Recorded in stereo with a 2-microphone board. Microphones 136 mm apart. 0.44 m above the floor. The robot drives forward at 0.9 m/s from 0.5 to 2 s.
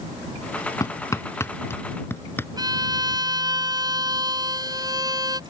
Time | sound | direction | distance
0.8 | hammering | 25° left (ahead or behind) | ?
2.6 | a violin | 30° right (ahead or behind) | ?